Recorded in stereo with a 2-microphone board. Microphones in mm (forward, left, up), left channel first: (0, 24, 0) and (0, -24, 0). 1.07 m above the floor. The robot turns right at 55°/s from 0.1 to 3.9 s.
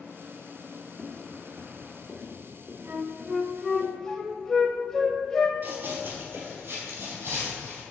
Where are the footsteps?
40° left (ahead or behind), 1.3 m; by 3.8 s 55° right (ahead or behind), 3 m.